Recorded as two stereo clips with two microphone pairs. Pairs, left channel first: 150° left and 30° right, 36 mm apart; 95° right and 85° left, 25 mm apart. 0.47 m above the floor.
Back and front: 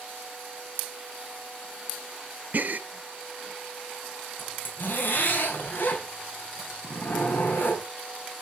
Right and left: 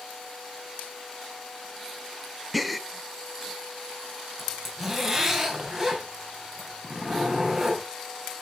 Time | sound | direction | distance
2.5 | a gasp | straight ahead | 0.6 m
4.4 | a zipper | 170° left | 3.5 m